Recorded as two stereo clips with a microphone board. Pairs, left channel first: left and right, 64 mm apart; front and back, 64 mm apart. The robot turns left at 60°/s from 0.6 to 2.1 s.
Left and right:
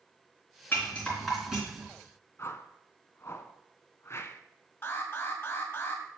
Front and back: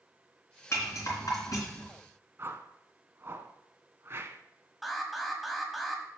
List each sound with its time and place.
0.7 s a rattle: 40° left, 3.5 m; by 1.9 s 35° right, 3.5 m
2.4 s a whoosh: 135° left, 0.6 m
4.8 s an alarm: 90° left, 1.8 m